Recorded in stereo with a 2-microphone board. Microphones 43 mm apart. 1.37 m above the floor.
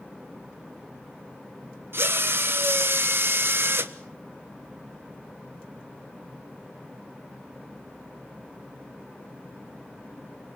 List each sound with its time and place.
1.9 s a drill: 65° right (ahead or behind), 1.3 m